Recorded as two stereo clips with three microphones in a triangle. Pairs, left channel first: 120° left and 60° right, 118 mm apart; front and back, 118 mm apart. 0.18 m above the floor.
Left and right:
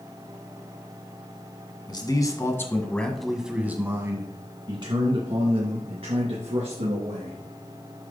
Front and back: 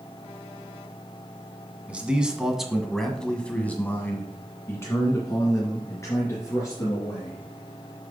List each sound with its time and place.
1.9 s a man speaking: 105° left, 1.5 m; by 7.4 s 60° right, 3 m